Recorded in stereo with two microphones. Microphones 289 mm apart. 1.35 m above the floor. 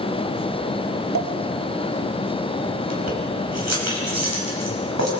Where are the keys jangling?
65° right (ahead or behind), 5.5 m.